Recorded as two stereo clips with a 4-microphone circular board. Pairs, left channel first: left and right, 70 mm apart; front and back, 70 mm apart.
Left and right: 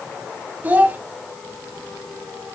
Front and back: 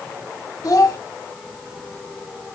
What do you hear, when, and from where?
0.6 s a child speaking: 25° right, 2.0 m